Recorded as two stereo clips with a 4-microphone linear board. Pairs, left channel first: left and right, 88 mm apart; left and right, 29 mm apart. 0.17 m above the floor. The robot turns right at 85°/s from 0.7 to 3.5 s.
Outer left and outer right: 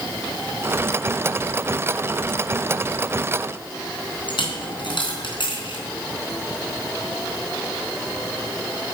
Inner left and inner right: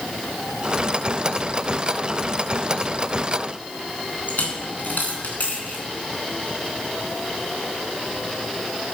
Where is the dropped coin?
65° left (ahead or behind), 3.5 m.